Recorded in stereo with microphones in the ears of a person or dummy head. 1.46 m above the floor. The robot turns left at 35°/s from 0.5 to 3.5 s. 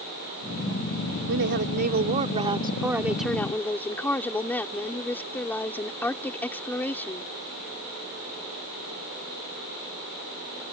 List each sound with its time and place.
1.3 s a woman speaking: 115° right; by 7.3 s 170° left